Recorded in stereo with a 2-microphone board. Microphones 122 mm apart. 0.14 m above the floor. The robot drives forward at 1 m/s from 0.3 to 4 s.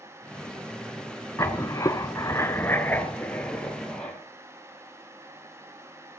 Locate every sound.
1.4 s writing: 25° left (ahead or behind), 0.9 m; by 4.2 s 10° left (ahead or behind), 2 m